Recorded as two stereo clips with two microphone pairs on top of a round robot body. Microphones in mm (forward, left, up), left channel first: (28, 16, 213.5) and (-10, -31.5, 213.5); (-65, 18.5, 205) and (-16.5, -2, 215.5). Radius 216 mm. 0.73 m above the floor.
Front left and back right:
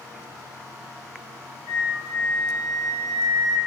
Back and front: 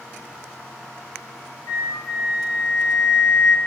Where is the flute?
Straight behind, 0.8 m.